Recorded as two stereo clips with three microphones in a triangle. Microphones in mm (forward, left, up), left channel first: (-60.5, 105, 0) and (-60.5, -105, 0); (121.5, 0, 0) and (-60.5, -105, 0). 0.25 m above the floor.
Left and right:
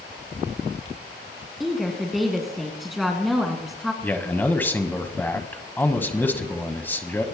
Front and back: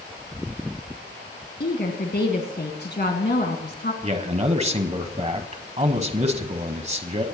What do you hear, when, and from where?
1.6 s a woman speaking: straight ahead, 2 m
4.0 s a man speaking: 165° left, 1.4 m